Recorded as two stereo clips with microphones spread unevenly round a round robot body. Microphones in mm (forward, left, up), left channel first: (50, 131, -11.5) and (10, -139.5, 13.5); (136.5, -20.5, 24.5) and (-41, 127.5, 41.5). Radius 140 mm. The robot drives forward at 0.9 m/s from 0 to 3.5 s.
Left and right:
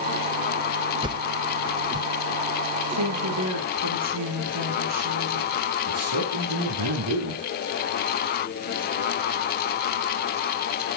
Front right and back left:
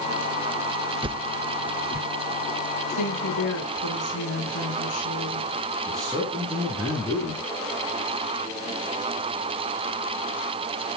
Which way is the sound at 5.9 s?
125° right.